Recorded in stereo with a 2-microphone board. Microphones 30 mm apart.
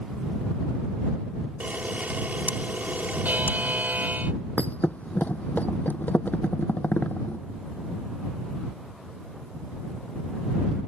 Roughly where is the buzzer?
Right.